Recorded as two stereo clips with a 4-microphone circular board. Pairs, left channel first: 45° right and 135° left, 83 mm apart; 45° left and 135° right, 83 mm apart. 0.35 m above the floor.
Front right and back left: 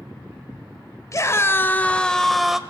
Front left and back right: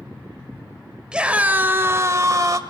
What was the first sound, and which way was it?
A scream, 60° right.